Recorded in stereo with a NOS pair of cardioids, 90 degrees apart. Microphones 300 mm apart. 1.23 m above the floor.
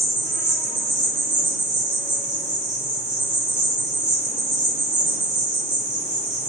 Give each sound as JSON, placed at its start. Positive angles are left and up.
{"t": 0.0, "sound": "an insect", "azimuth_deg": -25, "distance_m": 0.8}